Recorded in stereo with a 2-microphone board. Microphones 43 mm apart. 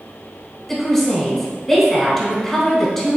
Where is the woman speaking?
10° left (ahead or behind), 1.2 m.